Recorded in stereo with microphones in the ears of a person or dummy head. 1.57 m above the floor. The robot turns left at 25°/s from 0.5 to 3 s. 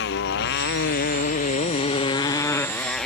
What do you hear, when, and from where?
0.0 s a motorcycle: 65° left; by 3.1 s straight ahead